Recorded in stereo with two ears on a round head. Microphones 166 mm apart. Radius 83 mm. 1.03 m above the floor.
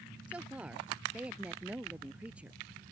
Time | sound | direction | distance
0.3 | a woman speaking | 5° right (ahead or behind) | ?